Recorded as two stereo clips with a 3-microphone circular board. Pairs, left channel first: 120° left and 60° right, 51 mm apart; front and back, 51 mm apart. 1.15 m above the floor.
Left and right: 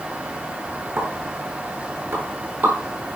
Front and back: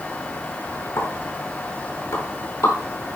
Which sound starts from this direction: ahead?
A pop, at 1.0 s.